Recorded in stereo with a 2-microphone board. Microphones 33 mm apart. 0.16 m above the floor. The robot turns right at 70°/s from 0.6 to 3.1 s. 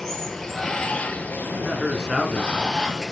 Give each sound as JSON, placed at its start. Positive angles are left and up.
{"t": 0.0, "sound": "running water", "azimuth_deg": 10, "distance_m": 1.9}
{"t": 1.4, "sound": "a man speaking", "azimuth_deg": -45, "distance_m": 1.9}